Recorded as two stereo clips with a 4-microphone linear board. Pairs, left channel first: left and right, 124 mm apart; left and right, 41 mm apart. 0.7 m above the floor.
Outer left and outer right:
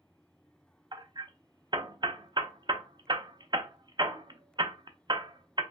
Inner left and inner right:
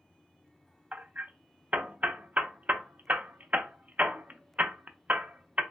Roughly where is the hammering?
Right.